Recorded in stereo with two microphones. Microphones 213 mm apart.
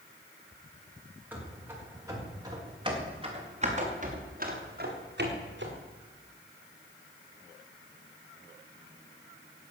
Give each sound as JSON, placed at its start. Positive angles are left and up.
{"t": 1.3, "sound": "running footsteps", "side_deg": -10, "distance_m": 6.5}